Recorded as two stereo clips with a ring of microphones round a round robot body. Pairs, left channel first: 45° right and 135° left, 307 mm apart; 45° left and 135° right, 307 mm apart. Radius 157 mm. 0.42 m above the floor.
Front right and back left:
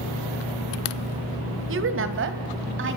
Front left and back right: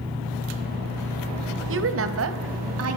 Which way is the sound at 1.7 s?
Straight behind.